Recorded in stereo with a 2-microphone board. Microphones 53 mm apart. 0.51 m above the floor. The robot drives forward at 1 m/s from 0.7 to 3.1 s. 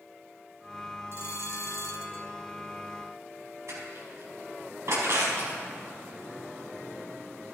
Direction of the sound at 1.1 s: 55° left (ahead or behind).